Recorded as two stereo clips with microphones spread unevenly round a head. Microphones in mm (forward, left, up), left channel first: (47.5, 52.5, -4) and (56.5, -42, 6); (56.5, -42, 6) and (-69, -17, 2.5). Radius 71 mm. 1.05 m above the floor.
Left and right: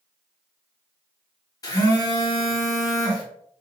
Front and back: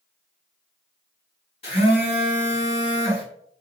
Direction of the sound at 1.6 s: 45° left.